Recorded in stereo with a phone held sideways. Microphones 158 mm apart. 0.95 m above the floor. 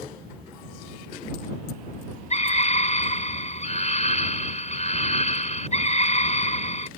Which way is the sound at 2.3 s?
45° left (ahead or behind).